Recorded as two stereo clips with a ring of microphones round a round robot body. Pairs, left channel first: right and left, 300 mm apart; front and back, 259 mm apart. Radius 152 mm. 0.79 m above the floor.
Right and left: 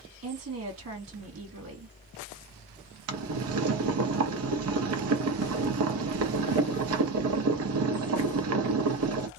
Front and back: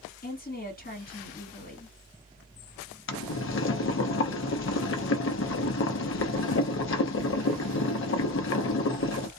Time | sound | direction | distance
0.2 | a woman speaking | 50° left | 1.8 m
3.1 | boiling | 45° left | 0.7 m